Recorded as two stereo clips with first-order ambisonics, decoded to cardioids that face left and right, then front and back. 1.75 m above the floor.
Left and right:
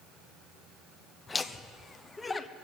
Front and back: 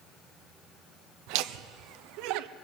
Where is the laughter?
165° left, 0.7 m.